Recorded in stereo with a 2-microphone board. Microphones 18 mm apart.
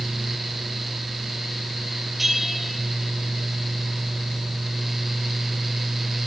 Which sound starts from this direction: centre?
A bell, at 2.2 s.